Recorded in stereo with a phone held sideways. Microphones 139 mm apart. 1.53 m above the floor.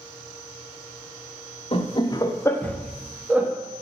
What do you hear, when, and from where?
1.7 s laughter: 45° left (ahead or behind), 0.9 m; by 3.5 s 15° right (ahead or behind), 1.0 m